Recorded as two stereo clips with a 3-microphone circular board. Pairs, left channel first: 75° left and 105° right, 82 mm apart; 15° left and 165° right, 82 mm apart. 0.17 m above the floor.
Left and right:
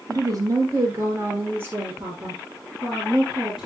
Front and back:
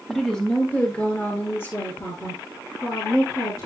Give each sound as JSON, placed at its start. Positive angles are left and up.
{"t": 0.1, "sound": "a woman speaking", "azimuth_deg": -70, "distance_m": 3.0}